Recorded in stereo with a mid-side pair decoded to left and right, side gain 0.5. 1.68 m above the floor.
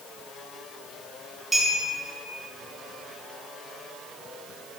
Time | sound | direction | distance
1.5 | a clink | 25° right | 2.0 m